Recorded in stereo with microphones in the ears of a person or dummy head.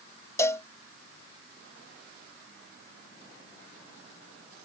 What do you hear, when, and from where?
0.4 s a cowbell: 15° left (ahead or behind)